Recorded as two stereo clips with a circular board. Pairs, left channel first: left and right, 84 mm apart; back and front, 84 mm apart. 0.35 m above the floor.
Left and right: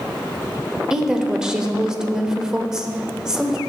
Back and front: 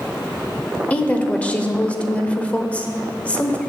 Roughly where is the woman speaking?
Behind right.